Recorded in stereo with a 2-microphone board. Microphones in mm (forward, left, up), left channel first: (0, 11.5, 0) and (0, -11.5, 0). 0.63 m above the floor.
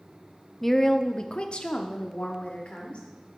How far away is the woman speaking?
About 0.7 m.